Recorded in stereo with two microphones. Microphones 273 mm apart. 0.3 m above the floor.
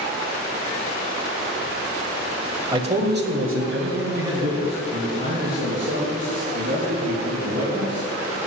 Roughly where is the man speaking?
Centre.